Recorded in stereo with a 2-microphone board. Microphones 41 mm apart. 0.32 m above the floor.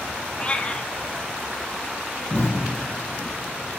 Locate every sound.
0.4 s a cat meowing: 25° left (ahead or behind), 0.9 m
2.3 s an explosion: 25° left (ahead or behind), 8.5 m